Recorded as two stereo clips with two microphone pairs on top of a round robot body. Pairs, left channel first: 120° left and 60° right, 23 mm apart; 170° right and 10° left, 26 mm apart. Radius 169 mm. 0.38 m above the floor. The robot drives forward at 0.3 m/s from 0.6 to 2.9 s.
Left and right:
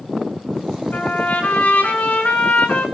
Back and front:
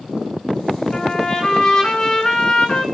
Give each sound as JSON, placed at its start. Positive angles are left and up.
{"t": 0.9, "sound": "a trumpet", "azimuth_deg": 130, "distance_m": 6.0}